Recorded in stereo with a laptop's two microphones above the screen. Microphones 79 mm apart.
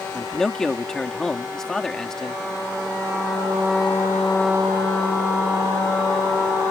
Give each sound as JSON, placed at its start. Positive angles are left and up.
{"t": 0.1, "sound": "a man speaking", "side_deg": 5}